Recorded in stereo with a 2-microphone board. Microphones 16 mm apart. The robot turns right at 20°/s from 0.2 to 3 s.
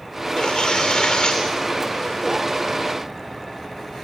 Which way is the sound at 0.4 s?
75° left (ahead or behind).